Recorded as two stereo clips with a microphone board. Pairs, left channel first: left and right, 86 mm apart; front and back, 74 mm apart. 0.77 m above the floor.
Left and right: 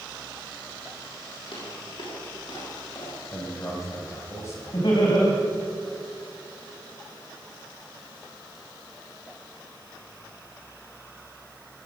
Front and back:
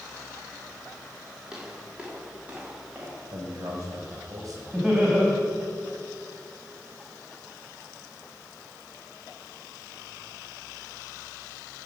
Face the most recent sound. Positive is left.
turn(degrees=105)